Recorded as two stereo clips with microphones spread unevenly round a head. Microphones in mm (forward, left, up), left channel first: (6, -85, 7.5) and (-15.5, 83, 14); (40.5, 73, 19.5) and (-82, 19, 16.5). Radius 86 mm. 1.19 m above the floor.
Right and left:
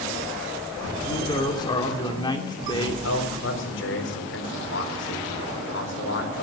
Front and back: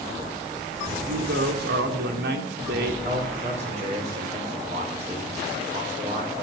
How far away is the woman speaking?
About 2.5 m.